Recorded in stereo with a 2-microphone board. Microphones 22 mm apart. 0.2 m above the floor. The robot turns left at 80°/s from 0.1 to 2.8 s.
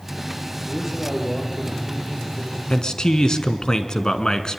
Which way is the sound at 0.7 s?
155° right.